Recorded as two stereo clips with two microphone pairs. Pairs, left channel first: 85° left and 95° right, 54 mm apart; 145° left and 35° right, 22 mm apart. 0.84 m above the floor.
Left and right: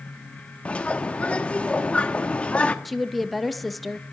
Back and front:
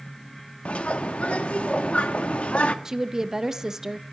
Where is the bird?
155° left, 1.1 m.